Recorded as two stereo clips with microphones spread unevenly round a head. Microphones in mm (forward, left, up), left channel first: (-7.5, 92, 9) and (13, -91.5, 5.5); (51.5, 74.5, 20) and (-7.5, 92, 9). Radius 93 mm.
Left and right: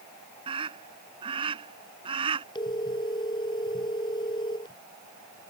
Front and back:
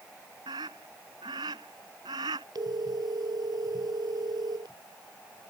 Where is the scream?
150° right.